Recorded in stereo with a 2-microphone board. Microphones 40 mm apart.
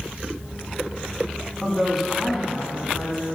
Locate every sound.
1.6 s a woman speaking: 5° right (ahead or behind), 1.2 m